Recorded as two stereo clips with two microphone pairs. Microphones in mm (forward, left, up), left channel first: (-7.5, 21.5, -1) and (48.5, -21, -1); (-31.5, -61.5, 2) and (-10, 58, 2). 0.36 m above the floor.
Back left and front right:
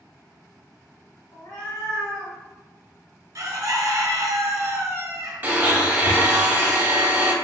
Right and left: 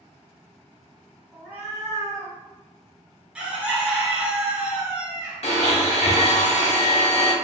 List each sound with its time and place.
1.3 s a cat meowing: 160° left, 1.5 m; by 2.4 s 125° left, 1.2 m
3.4 s a bird: straight ahead, 0.7 m
5.4 s a blender: 90° right, 0.7 m